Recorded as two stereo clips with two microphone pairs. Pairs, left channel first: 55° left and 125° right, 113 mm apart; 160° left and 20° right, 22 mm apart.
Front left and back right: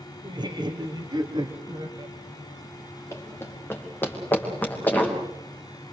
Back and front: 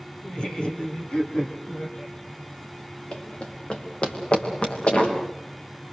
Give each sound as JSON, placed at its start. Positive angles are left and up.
{"t": 0.2, "sound": "laughter", "azimuth_deg": -175, "distance_m": 4.0}
{"t": 3.1, "sound": "running footsteps", "azimuth_deg": 120, "distance_m": 3.5}